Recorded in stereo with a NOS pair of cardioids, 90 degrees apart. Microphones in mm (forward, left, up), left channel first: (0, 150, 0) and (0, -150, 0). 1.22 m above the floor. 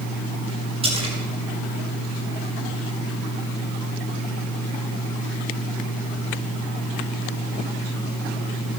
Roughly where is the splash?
Ahead.